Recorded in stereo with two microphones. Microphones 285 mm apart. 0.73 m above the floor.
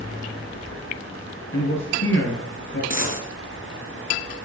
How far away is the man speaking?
About 8.5 m.